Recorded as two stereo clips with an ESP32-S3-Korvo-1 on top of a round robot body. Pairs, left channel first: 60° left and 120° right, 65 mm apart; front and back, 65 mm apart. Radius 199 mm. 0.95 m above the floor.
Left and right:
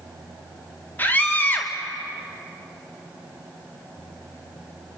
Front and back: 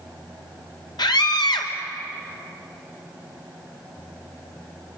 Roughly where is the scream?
Ahead.